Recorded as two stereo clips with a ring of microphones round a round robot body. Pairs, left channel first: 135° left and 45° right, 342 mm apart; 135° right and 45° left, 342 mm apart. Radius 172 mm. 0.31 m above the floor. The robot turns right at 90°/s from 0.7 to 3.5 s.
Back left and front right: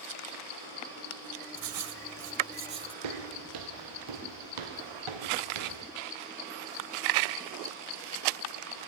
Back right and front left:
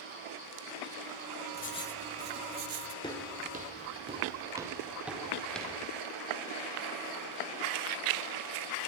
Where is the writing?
85° right, 1.1 m; by 2.9 s 40° left, 1.1 m.